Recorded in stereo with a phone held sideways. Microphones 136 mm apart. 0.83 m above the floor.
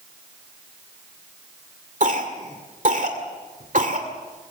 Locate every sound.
2.0 s a cough: 70° right (ahead or behind), 2 m